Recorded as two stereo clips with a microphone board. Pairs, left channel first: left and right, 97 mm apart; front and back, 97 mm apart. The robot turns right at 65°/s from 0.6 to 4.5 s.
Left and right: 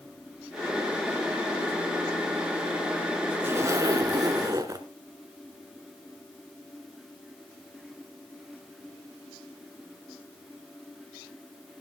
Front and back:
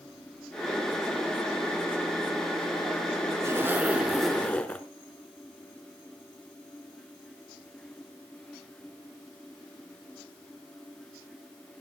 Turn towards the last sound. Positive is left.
turn(degrees=-70)